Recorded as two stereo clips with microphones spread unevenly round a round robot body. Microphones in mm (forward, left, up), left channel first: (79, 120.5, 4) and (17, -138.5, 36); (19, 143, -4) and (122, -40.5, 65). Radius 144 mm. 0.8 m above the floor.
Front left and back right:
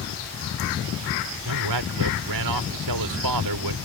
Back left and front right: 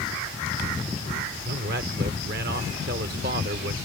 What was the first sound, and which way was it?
A man speaking, 120° right.